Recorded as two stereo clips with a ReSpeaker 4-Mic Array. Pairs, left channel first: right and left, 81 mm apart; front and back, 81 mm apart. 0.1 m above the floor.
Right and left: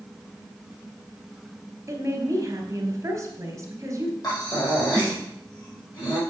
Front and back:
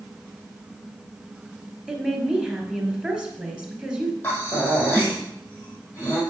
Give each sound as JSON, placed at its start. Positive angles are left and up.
{"t": 1.9, "sound": "a woman speaking", "azimuth_deg": 110, "distance_m": 2.0}
{"t": 4.2, "sound": "breathing", "azimuth_deg": -60, "distance_m": 4.5}